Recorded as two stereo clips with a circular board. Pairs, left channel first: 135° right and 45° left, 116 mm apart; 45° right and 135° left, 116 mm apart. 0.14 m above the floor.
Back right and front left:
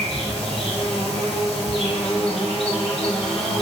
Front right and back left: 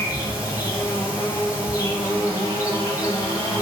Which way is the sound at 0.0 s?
105° right.